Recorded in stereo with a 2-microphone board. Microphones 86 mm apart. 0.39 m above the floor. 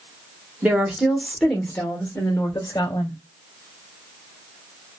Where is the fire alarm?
I don't hear a fire alarm.